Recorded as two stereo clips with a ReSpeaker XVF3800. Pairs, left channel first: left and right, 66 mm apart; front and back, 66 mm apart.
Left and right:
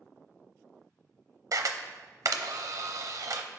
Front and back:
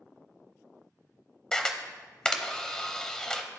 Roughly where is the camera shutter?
Right.